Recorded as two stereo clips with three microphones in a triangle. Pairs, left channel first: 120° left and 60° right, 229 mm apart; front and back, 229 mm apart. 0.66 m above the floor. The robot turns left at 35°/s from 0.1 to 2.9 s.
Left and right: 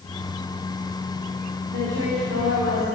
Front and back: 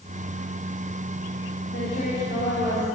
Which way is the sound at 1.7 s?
35° right.